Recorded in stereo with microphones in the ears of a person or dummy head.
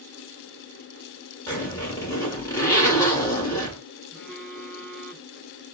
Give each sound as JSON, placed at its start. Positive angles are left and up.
{"t": 1.5, "sound": "a zipper", "side_deg": 15, "distance_m": 1.3}
{"t": 4.1, "sound": "a phone buzzing", "side_deg": -5, "distance_m": 1.6}